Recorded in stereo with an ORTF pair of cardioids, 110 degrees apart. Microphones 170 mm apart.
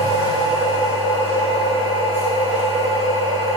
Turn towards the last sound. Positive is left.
turn(degrees=-50)